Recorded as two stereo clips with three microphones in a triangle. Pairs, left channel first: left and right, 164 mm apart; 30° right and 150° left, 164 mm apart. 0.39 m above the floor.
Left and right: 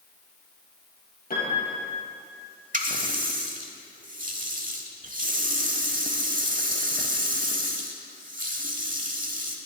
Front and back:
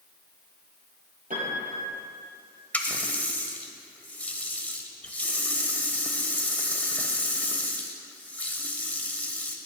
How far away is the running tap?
About 0.9 m.